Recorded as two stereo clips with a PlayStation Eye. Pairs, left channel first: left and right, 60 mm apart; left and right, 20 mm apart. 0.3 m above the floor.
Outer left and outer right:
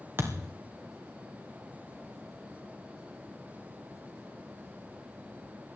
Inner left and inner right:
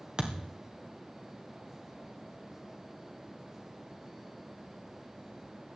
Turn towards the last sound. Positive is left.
turn(degrees=-40)  # may be behind; listen again after turning